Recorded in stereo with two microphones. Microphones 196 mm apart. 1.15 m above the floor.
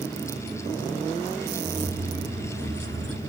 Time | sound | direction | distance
1.6 | keys jangling | 60° right (ahead or behind) | 2 m